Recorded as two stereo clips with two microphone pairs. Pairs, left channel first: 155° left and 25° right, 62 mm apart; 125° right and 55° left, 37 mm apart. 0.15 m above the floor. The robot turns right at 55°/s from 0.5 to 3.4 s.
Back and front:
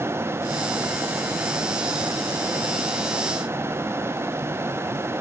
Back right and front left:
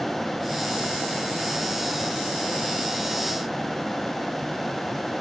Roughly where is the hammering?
I don't hear hammering.